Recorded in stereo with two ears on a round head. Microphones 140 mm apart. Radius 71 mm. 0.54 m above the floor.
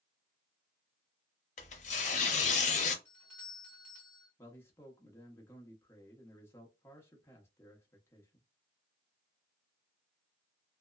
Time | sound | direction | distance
1.6 | tearing paper | 50° left (ahead or behind) | 0.6 m
3.0 | a doorbell | 10° left (ahead or behind) | 1.7 m
4.4 | a man speaking | 15° left (ahead or behind) | 0.7 m